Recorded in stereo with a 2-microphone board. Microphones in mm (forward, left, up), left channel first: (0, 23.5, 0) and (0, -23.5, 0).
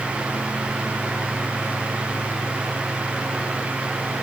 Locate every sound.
Only background noise.